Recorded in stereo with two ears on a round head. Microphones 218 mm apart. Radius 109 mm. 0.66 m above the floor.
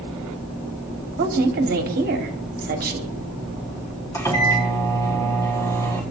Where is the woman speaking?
40° right (ahead or behind), 1.5 m.